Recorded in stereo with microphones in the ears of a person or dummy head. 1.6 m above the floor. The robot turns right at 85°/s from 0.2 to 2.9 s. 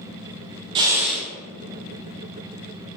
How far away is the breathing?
About 0.6 m.